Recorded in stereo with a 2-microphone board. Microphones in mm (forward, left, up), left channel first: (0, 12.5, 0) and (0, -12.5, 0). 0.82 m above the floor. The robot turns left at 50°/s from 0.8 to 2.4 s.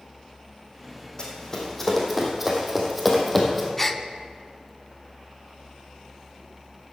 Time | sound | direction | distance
1.2 | running footsteps | 35° left (ahead or behind) | 2.5 m
3.8 | a gasp | 10° left (ahead or behind) | 0.5 m